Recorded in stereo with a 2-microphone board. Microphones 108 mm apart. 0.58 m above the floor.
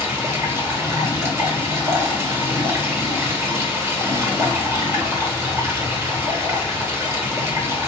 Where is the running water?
25° right (ahead or behind), 1.3 m.